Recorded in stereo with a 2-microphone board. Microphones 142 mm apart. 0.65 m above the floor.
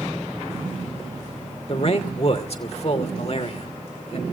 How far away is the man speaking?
About 2.5 m.